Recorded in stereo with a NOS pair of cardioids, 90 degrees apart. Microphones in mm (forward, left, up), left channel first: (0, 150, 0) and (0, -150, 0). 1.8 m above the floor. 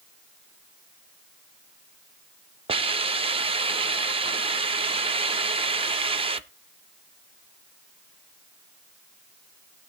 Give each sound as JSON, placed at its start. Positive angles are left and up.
{"t": 2.7, "sound": "a hiss", "azimuth_deg": -15, "distance_m": 0.6}